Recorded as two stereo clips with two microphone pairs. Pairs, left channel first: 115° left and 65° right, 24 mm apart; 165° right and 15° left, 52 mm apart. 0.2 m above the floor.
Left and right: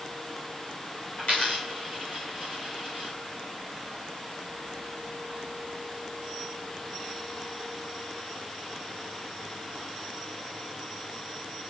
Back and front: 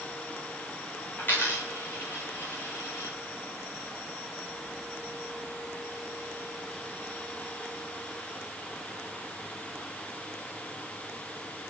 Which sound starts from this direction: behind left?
A dropped coin, at 1.2 s.